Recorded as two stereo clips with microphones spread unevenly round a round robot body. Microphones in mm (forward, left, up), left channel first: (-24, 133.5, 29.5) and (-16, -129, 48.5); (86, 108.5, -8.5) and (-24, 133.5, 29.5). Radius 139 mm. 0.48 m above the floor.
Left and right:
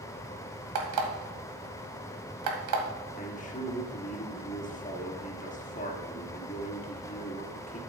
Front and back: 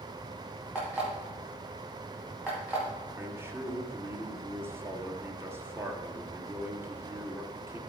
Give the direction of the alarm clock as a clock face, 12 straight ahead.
3 o'clock.